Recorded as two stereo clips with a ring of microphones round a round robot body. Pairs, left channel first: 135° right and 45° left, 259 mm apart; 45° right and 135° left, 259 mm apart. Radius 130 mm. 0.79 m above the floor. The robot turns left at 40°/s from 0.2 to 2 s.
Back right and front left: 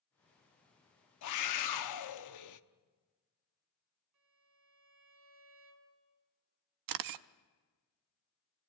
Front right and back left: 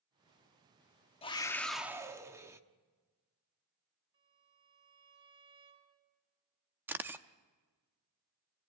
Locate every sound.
1.2 s a scream: 115° right, 1.1 m; by 2.6 s 145° right, 1.1 m
4.1 s a violin: 65° left, 4 m
6.9 s a camera shutter: 50° left, 0.6 m